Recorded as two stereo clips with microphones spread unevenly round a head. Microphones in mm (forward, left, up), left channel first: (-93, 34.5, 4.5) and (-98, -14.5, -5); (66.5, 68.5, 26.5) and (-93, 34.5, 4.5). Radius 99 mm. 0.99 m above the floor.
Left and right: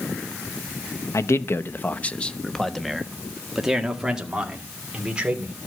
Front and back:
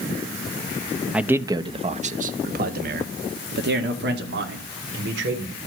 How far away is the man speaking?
About 0.9 m.